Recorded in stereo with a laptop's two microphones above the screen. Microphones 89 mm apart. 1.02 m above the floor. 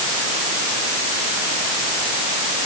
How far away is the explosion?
I don't hear an explosion.